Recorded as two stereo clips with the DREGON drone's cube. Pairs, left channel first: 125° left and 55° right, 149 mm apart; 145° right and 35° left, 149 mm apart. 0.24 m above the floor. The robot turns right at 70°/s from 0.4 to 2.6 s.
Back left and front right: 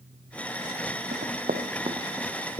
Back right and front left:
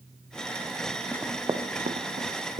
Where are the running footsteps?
60° right, 1.1 m; by 2.6 s 55° left, 1.8 m.